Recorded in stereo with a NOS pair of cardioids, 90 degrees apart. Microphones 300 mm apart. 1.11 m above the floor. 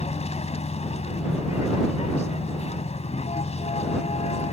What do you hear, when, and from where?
0.0 s a vehicle: 20° left